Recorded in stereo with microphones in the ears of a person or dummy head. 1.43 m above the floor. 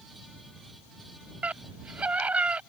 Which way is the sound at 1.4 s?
5° right (ahead or behind).